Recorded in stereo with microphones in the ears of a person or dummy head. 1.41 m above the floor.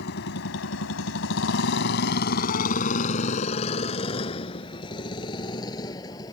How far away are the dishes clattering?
I don't hear dishes clattering.